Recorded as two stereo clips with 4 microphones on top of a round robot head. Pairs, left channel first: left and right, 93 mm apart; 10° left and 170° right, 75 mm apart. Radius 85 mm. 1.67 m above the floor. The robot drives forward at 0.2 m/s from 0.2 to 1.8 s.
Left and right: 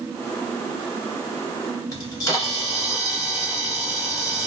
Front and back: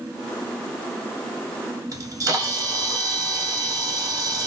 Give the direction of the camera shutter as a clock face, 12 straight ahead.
7 o'clock.